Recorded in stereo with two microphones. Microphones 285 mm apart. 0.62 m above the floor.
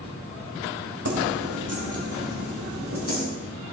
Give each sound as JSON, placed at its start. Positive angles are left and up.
{"t": 1.1, "sound": "keys jangling", "side_deg": -70, "distance_m": 2.5}